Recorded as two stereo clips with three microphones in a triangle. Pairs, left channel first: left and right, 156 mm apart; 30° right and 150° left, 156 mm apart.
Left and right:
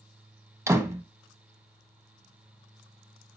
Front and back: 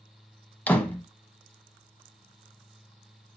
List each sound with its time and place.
0.7 s a door slam: 90° right, 0.9 m